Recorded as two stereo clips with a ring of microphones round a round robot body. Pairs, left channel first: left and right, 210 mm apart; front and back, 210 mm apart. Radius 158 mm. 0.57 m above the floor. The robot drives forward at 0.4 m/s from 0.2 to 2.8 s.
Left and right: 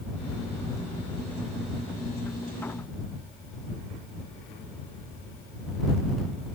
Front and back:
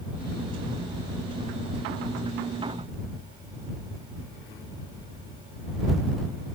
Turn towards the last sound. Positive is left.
No sound to turn to.